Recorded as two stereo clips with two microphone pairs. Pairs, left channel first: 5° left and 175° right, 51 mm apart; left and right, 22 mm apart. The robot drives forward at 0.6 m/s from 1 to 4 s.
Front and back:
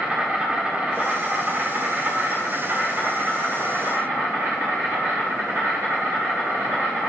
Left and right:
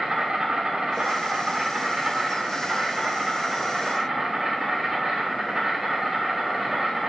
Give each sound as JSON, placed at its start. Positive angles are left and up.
{"t": 0.0, "sound": "an insect", "azimuth_deg": -120, "distance_m": 1.6}